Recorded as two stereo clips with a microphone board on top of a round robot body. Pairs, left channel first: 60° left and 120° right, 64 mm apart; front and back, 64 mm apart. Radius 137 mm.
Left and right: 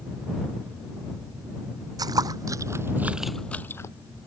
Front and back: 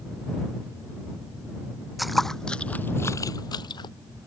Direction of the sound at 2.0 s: 90° right.